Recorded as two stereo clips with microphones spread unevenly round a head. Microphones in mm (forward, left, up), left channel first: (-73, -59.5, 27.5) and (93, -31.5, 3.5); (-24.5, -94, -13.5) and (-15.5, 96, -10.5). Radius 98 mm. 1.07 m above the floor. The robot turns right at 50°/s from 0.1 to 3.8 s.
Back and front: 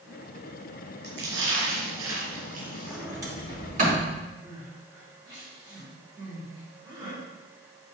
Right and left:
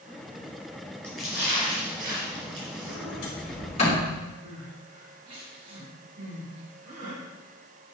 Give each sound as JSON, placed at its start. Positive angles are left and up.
{"t": 1.0, "sound": "a splash", "azimuth_deg": -15, "distance_m": 3.0}
{"t": 2.9, "sound": "a sliding door", "azimuth_deg": -80, "distance_m": 3.0}
{"t": 4.4, "sound": "crying", "azimuth_deg": 80, "distance_m": 3.5}